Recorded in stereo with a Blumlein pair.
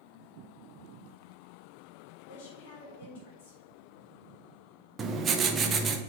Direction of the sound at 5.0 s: 20° right.